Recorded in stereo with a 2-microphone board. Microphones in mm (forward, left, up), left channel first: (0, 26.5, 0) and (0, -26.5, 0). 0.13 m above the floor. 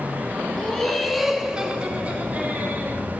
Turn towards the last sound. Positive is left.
turn(degrees=-35)  # may be behind; listen again after turning